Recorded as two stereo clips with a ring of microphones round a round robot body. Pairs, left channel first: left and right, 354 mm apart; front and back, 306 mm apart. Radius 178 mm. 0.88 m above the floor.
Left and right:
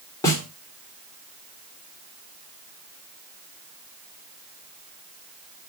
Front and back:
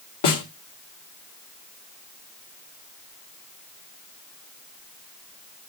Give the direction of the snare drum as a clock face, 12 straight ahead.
12 o'clock.